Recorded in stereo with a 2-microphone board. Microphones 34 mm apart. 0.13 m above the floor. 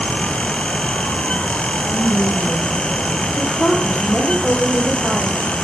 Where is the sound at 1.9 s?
65° left (ahead or behind), 5 m.